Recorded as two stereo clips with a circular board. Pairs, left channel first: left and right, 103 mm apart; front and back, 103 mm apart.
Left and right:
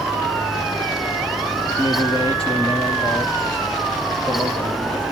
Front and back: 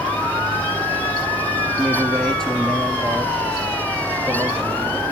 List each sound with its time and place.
1.8 s a man speaking: 80° left, 2.5 m; by 5.0 s 90° left, 4.5 m